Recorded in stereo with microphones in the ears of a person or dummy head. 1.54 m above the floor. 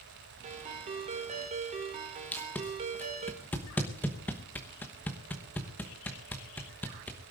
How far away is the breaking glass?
No breaking glass in this recording.